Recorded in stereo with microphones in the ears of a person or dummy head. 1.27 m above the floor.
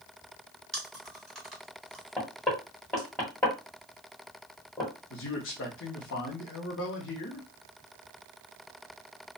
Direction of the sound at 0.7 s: Centre (ahead or behind).